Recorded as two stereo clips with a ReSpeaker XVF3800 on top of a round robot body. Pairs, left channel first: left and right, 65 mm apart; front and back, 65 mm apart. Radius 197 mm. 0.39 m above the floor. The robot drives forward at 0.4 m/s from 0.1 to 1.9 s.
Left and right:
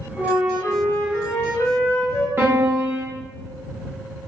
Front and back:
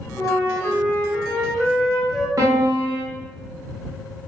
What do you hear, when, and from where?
0.2 s a flute: 35° left, 1.3 m; by 2.3 s 85° left, 1.1 m
2.4 s a piano: 145° right, 0.8 m